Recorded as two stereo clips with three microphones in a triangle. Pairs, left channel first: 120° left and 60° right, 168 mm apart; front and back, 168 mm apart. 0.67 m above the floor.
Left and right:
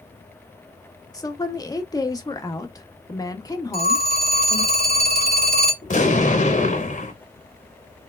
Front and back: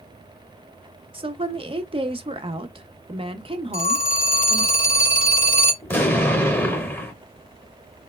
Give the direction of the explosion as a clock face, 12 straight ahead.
9 o'clock.